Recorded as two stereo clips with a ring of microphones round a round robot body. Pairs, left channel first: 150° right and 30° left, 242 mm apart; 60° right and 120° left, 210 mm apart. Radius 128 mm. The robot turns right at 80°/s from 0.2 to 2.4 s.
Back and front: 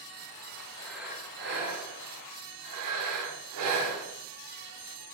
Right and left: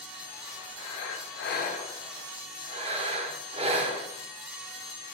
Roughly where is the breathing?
Right.